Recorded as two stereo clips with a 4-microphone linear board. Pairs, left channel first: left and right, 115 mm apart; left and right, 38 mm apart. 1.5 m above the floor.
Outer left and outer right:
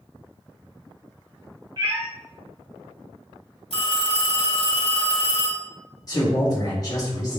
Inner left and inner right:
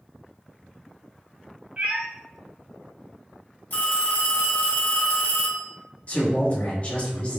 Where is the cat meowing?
35° right (ahead or behind), 1.5 m.